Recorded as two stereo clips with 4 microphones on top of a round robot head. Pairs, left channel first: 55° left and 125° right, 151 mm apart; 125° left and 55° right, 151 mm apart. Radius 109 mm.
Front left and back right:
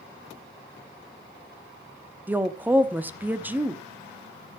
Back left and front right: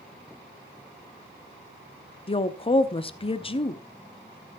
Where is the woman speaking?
160° left, 1.1 m.